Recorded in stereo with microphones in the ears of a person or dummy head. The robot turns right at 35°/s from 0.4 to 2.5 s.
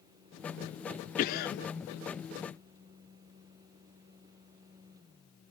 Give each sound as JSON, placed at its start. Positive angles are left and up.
{"t": 1.2, "sound": "a cough", "side_deg": 50, "distance_m": 0.5}